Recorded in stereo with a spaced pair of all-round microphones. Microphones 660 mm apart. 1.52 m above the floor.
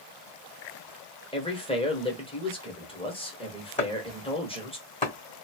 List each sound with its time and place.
1.3 s a man speaking: 10° left (ahead or behind), 1.0 m
3.8 s chopping: 10° left (ahead or behind), 1.5 m